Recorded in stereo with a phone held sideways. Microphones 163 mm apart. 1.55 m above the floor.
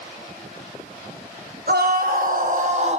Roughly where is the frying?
I don't hear frying.